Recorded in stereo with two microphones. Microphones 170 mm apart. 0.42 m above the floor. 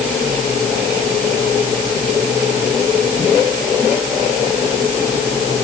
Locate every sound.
Only background noise.